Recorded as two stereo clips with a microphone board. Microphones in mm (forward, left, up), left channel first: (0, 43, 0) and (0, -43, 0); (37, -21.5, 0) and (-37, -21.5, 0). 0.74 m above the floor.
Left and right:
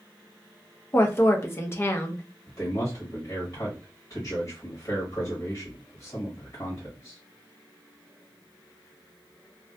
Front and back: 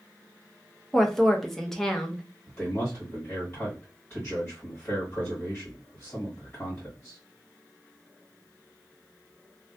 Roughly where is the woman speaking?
Left.